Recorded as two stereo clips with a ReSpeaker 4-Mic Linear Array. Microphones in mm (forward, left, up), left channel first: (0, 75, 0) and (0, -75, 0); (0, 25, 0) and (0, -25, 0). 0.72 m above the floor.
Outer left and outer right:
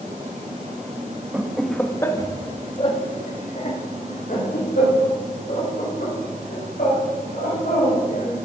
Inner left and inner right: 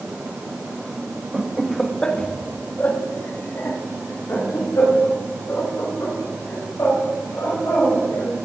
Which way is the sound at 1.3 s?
10° right (ahead or behind).